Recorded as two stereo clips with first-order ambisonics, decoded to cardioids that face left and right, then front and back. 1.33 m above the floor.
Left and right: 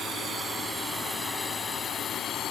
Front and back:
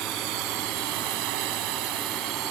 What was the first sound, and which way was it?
A drone, 155° right.